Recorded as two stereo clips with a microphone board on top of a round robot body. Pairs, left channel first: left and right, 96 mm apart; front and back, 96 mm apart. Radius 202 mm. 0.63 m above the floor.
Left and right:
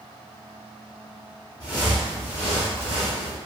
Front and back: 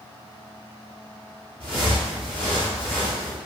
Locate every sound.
1.6 s footsteps: 165° left, 0.6 m; by 3.4 s 60° right, 0.9 m